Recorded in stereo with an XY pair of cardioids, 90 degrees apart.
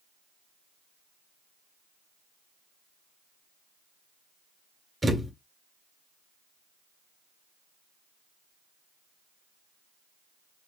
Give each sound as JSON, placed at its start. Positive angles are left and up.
{"t": 5.0, "sound": "a thud", "azimuth_deg": -20, "distance_m": 2.0}